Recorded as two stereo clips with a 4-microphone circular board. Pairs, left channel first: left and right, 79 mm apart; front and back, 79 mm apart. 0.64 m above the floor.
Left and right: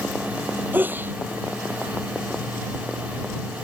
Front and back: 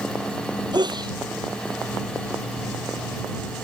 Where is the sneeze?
155° right.